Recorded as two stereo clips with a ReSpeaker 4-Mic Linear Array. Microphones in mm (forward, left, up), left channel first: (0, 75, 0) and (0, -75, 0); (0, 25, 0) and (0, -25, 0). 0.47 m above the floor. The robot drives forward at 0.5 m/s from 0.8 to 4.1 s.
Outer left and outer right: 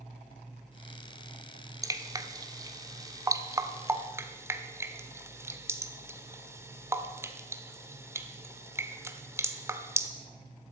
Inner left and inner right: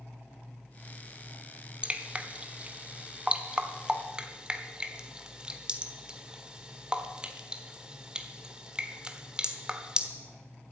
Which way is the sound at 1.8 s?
20° right (ahead or behind).